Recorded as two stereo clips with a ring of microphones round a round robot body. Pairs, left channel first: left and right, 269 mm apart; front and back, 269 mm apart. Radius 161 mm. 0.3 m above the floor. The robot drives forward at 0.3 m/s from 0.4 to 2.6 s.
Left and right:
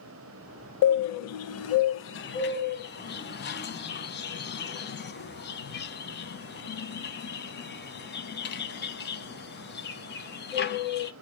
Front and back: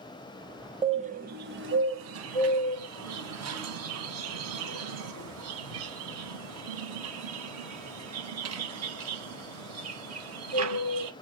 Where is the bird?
110° left, 0.6 m; by 11.1 s 145° left, 0.9 m.